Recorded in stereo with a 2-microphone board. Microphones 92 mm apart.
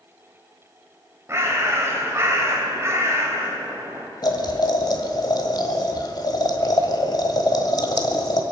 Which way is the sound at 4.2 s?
50° left (ahead or behind).